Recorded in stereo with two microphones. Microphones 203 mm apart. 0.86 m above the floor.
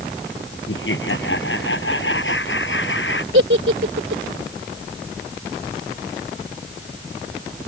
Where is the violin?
I don't hear a violin.